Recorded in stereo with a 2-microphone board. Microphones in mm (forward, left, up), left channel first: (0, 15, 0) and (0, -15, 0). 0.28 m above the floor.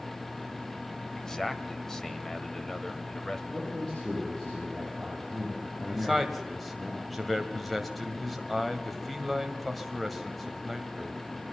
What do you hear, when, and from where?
1.1 s a man speaking: 20° left (ahead or behind), 1.1 m
3.5 s a man speaking: 20° left (ahead or behind), 9.5 m
5.9 s a man speaking: 5° left (ahead or behind), 1.6 m